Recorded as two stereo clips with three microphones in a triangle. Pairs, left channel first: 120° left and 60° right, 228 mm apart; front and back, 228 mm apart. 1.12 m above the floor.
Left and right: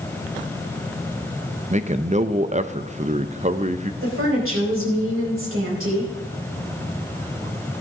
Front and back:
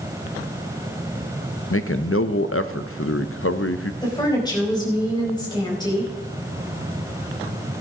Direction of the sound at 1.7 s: Straight ahead.